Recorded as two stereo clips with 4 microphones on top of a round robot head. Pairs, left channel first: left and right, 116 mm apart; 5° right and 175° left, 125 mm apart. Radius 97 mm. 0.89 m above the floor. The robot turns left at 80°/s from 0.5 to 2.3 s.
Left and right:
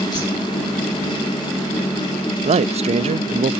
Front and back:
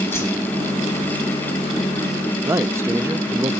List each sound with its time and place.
0.1 s a whoosh: 60° left, 7 m
2.4 s a man speaking: 115° right, 0.7 m